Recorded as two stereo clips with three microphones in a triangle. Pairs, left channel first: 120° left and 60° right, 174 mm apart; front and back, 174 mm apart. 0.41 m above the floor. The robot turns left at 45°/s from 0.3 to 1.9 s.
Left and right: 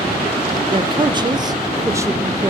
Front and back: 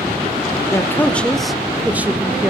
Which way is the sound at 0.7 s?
55° right.